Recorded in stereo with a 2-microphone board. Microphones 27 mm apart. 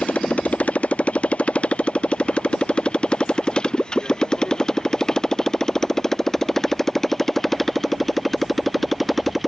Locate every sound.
0.0 s a motorcycle: 55° left (ahead or behind); by 9.5 s centre (ahead or behind)